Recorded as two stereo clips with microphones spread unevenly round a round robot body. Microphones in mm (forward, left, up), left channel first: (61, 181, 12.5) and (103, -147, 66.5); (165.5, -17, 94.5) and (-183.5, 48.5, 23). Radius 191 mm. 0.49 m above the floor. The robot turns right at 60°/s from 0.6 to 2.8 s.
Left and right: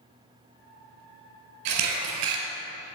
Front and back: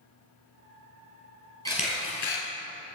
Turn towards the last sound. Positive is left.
turn(degrees=-40)